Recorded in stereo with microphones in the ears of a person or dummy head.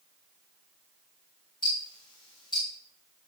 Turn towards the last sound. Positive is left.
turn(degrees=20)  # may be behind; listen again after turning